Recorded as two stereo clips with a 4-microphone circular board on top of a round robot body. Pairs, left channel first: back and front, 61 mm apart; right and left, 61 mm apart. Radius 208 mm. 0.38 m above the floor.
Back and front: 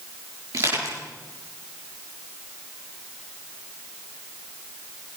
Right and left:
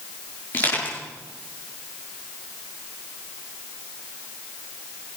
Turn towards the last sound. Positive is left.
turn(degrees=-30)